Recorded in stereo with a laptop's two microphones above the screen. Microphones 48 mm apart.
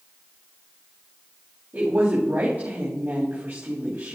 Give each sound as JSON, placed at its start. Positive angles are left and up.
{"t": 1.7, "sound": "a woman speaking", "side_deg": -40, "distance_m": 3.0}